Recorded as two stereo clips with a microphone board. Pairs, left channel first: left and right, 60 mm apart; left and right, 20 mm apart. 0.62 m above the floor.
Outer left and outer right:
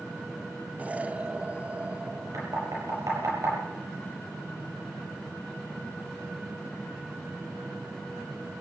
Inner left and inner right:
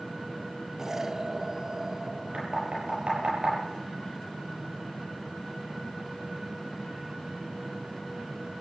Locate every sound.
0.8 s an explosion: 20° right (ahead or behind), 0.6 m
2.3 s knocking: 75° right (ahead or behind), 9 m